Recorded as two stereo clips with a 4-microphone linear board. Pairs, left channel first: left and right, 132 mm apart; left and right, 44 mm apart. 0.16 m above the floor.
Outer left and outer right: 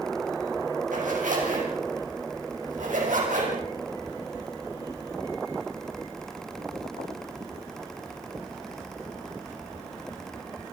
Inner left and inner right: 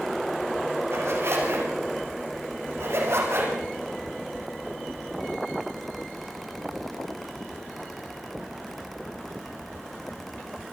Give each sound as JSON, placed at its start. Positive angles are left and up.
{"t": 0.9, "sound": "a zipper", "side_deg": -70, "distance_m": 8.5}